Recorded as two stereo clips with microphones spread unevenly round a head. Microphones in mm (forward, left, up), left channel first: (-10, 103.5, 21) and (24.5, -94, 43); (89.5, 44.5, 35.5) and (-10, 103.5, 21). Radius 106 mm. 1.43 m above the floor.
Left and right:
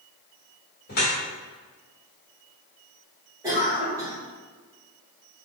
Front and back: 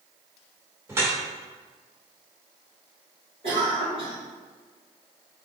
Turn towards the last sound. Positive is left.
turn(degrees=-155)